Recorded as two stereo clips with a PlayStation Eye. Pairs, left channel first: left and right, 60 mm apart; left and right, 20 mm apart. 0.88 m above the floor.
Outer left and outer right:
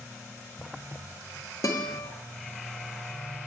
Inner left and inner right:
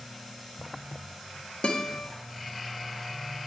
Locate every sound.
1.6 s a guitar: 70° left (ahead or behind), 1.5 m